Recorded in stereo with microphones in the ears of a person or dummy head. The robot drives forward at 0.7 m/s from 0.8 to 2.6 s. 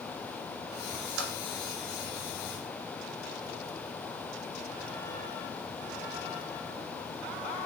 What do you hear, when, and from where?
1.2 s typing on a keyboard: 55° right (ahead or behind), 0.8 m; by 1.3 s 60° right (ahead or behind), 0.7 m